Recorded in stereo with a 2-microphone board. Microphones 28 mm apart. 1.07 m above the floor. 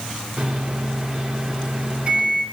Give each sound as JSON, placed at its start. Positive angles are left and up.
{"t": 0.4, "sound": "a microwave", "side_deg": -40, "distance_m": 2.0}